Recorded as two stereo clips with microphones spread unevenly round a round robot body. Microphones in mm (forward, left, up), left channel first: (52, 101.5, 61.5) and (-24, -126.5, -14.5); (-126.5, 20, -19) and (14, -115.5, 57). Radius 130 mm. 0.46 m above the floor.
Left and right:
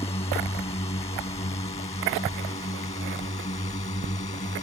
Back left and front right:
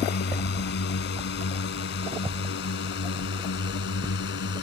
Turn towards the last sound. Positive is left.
turn(degrees=140)